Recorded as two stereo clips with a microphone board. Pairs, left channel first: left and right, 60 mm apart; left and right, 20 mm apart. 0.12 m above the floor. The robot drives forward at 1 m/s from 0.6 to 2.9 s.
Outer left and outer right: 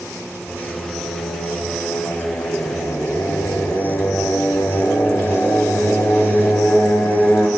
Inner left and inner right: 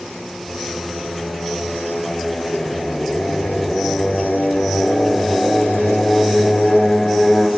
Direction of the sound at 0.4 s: 80° left.